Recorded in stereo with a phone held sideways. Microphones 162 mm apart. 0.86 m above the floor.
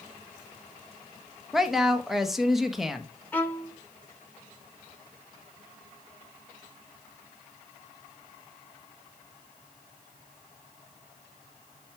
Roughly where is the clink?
No clink in this recording.